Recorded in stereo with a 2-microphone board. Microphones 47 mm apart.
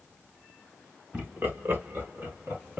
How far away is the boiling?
No boiling in this recording.